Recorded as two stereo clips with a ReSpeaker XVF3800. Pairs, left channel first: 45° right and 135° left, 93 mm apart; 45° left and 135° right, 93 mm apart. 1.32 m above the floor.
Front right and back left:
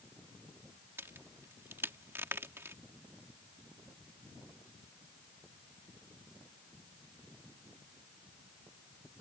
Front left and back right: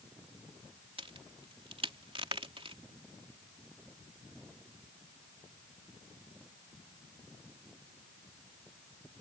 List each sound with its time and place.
1.0 s a crack: 160° right